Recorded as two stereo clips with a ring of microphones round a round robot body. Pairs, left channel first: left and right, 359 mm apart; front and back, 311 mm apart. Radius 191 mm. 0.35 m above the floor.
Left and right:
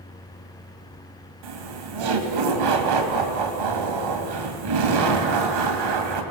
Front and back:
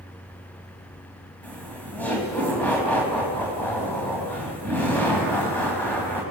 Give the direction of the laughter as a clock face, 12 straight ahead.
3 o'clock.